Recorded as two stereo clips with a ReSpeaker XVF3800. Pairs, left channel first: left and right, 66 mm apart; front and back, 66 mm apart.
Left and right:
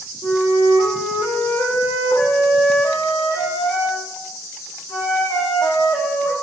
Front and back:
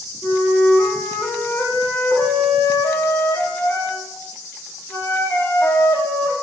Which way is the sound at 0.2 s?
65° left.